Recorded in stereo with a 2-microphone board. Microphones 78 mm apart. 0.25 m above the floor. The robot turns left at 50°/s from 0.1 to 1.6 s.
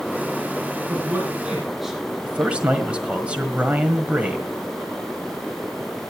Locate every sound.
0.9 s a man speaking: 40° right (ahead or behind), 7.5 m; by 2.0 s 5° right (ahead or behind), 7.5 m
2.2 s a man speaking: 15° right (ahead or behind), 1.5 m